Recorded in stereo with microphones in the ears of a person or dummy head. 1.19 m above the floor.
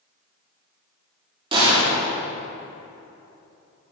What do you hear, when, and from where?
1.5 s a gunshot: 25° right (ahead or behind), 3 m